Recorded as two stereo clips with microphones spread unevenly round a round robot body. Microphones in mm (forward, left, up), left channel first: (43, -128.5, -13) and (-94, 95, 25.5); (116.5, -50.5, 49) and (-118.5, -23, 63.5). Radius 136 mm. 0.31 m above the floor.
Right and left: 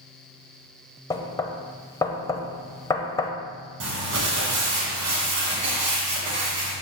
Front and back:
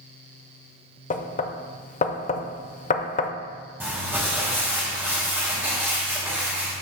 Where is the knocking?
5° right, 0.6 m.